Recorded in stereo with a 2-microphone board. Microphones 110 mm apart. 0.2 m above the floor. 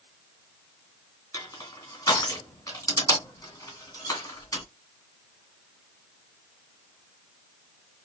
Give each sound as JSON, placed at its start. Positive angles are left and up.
{"t": 1.3, "sound": "crushing", "side_deg": 30, "distance_m": 1.9}